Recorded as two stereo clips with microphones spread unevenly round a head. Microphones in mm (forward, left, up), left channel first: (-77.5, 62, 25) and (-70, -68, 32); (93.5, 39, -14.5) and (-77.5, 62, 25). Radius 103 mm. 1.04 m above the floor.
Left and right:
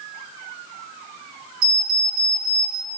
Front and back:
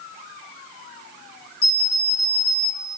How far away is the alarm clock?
About 3.5 m.